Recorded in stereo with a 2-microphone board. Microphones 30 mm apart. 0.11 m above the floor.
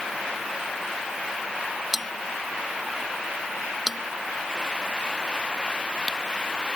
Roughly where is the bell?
Centre.